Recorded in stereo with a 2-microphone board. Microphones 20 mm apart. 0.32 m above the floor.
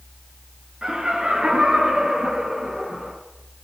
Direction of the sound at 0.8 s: 60° right (ahead or behind).